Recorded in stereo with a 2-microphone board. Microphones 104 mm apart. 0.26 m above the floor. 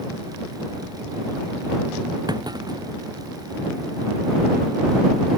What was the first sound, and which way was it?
A clunk, 40° right (ahead or behind).